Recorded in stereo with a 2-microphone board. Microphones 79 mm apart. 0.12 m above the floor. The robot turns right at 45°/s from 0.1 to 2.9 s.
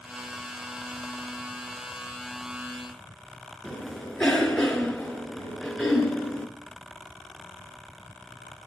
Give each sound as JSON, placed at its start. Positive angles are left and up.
{"t": 3.6, "sound": "a cough", "side_deg": 10, "distance_m": 1.4}